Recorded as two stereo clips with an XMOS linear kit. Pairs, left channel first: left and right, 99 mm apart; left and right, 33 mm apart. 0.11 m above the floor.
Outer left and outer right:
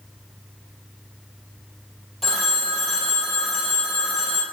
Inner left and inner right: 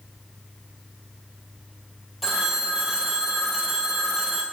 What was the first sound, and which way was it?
A phone ringing, centre (ahead or behind).